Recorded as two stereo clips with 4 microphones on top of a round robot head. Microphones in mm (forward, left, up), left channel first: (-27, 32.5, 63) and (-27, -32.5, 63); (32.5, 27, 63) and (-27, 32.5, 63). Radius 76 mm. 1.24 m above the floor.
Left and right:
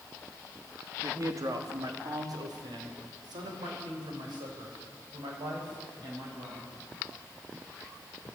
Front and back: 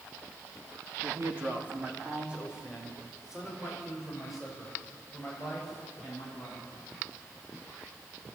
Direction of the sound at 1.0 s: 130° right.